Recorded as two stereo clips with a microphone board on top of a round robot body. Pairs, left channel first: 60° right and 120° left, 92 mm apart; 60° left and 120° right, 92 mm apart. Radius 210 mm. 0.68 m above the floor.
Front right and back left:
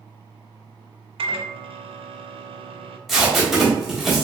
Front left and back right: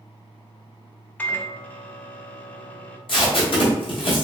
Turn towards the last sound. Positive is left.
turn(degrees=30)